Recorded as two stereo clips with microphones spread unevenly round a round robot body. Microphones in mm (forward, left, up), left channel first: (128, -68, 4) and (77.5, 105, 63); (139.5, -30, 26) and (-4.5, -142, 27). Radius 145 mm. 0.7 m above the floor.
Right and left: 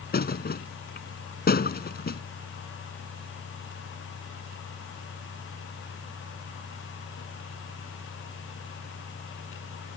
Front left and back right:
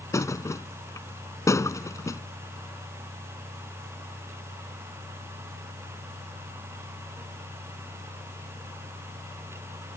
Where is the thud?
35° right.